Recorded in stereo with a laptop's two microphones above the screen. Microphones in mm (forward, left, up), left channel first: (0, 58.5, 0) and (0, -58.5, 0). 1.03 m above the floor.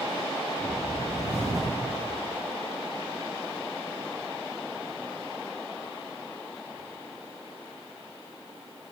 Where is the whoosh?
30° left (ahead or behind), 1.9 m.